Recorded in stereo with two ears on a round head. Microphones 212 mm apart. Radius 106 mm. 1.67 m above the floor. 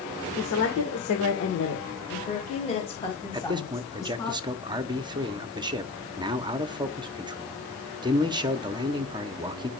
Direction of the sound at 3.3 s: 20° right (ahead or behind).